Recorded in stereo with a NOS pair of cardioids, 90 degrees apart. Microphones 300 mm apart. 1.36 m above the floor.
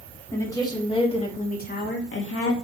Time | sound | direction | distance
0.3 | a woman speaking | 10° left | 3.5 m